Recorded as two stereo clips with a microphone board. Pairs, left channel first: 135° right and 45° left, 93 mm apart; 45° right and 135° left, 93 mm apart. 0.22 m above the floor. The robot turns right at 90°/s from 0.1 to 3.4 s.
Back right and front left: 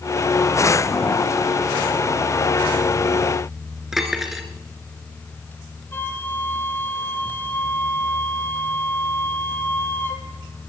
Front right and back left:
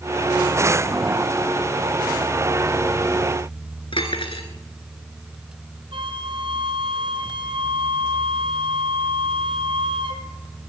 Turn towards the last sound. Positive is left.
turn(degrees=155)